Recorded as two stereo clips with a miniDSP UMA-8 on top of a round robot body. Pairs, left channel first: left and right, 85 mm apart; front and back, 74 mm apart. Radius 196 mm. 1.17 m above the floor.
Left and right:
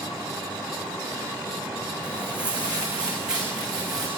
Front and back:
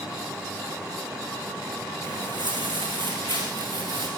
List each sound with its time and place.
2.0 s footsteps: 165° right, 3.5 m; by 4.1 s 175° right, 5.5 m